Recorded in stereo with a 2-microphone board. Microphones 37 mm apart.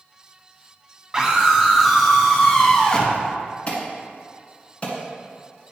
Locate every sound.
1.1 s a scream: 20° right (ahead or behind), 1.3 m; by 3.2 s 20° left (ahead or behind), 1.5 m
3.7 s an alarm: 35° left (ahead or behind), 2.0 m